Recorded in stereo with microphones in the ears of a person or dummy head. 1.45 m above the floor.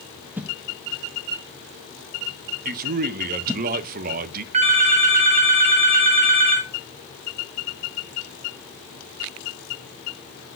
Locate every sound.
0.4 s a whoosh: 5° right (ahead or behind), 0.5 m
2.6 s a man speaking: 45° right (ahead or behind), 0.6 m
4.5 s a phone ringing: 35° right (ahead or behind), 1.1 m